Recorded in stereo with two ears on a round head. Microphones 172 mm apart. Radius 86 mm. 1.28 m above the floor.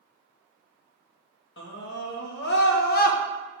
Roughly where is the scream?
Left.